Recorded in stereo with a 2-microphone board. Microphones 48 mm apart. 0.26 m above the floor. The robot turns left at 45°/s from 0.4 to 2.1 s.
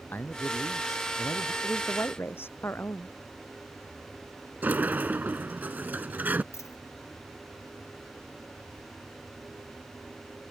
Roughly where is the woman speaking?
Left.